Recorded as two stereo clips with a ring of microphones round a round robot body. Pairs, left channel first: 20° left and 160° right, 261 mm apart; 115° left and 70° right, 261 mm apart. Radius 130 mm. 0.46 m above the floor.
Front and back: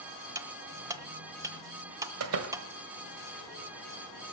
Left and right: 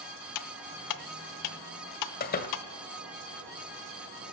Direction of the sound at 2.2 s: 170° left.